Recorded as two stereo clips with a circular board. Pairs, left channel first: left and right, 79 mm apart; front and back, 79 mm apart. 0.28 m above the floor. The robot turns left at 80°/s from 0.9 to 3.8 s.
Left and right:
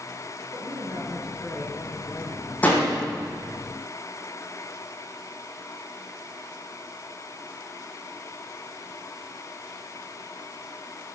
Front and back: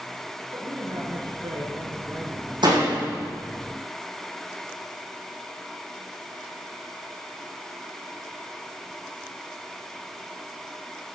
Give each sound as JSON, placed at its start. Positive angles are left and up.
{"t": 0.5, "sound": "a woman speaking", "azimuth_deg": -140, "distance_m": 4.5}
{"t": 2.6, "sound": "a door slam", "azimuth_deg": 160, "distance_m": 8.0}